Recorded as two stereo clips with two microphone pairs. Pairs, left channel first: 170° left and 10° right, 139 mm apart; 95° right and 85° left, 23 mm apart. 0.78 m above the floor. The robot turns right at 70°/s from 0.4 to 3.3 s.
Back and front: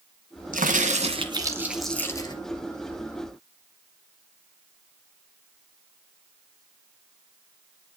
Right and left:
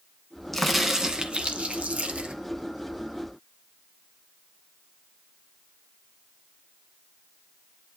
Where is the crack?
10° right, 1.8 m; by 2.4 s 115° left, 1.8 m.